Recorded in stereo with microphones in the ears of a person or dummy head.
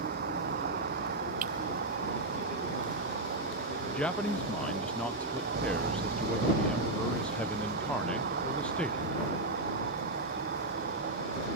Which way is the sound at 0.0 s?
55° right (ahead or behind).